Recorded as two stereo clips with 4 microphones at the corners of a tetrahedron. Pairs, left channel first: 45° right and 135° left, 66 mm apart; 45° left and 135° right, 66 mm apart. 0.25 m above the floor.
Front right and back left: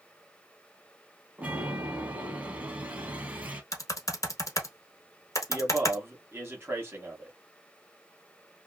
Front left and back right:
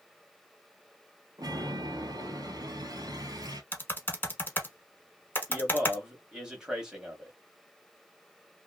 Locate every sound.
1.4 s a chime: 160° right, 1.1 m
3.7 s typing on a keyboard: 10° right, 1.0 m
5.5 s a man speaking: 150° left, 1.5 m